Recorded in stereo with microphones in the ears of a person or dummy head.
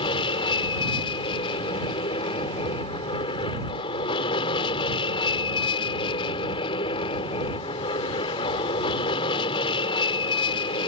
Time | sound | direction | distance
0.0 | an aircraft | 30° left (ahead or behind) | ?